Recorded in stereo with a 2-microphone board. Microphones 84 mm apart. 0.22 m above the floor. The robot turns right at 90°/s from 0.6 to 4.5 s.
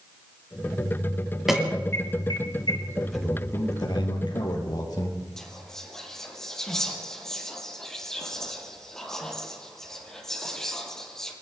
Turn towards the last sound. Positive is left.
turn(degrees=5)  # may be behind; listen again after turning